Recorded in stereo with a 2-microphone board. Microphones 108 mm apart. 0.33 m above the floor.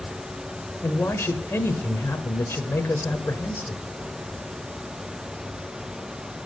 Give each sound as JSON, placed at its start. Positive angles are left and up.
{"t": 0.8, "sound": "a man speaking", "side_deg": 20, "distance_m": 1.1}